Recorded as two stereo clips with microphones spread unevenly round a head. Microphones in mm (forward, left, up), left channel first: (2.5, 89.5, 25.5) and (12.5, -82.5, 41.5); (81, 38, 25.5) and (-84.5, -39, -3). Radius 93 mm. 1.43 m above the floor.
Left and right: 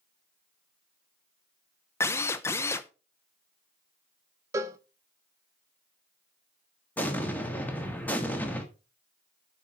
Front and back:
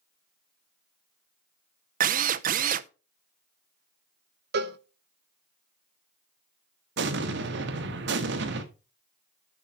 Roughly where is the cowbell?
Behind right.